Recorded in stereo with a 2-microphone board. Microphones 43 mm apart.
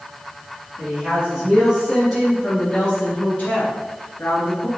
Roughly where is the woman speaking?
Right.